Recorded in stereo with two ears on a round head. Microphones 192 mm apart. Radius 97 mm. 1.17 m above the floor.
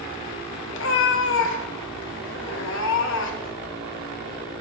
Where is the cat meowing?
60° left (ahead or behind), 0.9 m.